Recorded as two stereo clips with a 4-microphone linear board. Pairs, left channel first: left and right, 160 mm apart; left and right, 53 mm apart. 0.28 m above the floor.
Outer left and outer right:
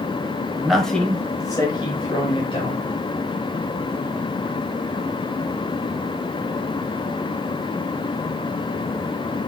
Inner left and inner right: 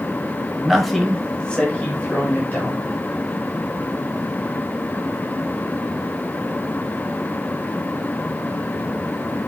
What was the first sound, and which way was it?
A man speaking, 5° right (ahead or behind).